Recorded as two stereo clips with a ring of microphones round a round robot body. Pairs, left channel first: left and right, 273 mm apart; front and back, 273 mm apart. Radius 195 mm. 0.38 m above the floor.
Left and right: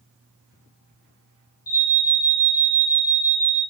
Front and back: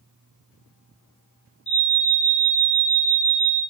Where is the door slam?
No door slam in this recording.